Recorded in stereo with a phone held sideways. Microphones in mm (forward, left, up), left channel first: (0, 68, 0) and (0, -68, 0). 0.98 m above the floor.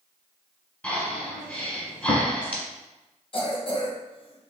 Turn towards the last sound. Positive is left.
turn(degrees=45)  # may be behind; listen again after turning